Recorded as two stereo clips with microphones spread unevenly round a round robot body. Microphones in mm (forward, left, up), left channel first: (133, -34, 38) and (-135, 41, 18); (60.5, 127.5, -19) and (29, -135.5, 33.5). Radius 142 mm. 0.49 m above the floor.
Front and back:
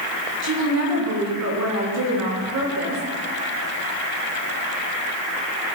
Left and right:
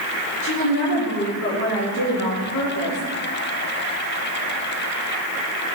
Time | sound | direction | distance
0.4 | a woman speaking | 130° left | 5.5 m